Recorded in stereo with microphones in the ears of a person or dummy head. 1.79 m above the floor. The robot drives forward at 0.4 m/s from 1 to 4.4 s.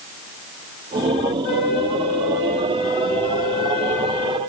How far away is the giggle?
No giggle in this recording.